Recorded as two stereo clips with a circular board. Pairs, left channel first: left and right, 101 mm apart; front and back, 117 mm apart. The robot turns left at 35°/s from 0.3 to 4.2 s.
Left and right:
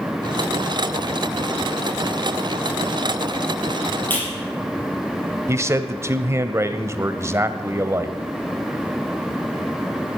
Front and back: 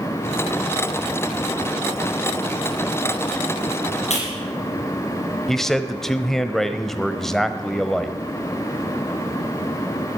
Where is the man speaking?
80° right, 1.0 m.